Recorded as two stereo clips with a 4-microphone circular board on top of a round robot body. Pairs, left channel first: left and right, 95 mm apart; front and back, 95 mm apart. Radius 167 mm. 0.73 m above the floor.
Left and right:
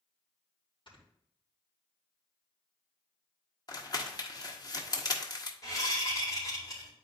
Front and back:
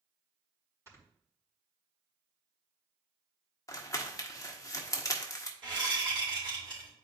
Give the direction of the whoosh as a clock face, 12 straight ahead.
7 o'clock.